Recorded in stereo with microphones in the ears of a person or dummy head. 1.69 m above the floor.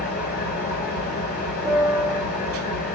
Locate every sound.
0.0 s an engine running: 45° left (ahead or behind), 2 m
1.6 s a piano: 10° right (ahead or behind), 1.6 m